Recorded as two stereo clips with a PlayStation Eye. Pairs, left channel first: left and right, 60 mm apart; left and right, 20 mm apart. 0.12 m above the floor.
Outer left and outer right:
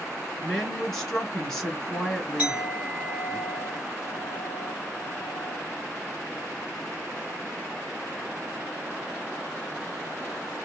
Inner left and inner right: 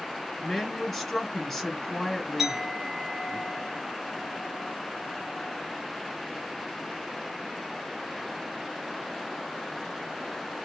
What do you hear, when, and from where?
0.4 s a woman speaking: 5° left (ahead or behind), 1.3 m
2.4 s a clink: 25° right (ahead or behind), 1.7 m